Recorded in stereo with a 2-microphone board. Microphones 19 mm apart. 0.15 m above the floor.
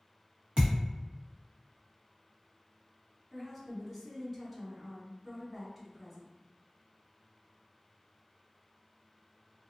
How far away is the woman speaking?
About 1.2 m.